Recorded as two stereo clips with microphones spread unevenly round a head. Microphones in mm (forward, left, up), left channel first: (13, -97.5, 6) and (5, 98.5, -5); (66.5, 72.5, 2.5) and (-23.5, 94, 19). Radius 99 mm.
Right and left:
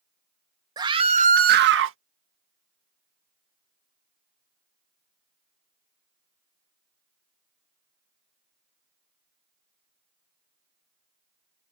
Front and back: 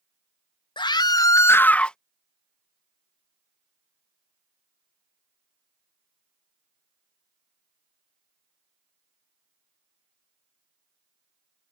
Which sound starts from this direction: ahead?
A scream, at 0.8 s.